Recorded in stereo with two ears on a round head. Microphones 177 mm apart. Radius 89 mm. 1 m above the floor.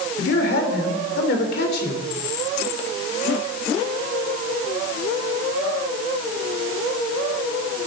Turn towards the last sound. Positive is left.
turn(degrees=55)  # may be behind; listen again after turning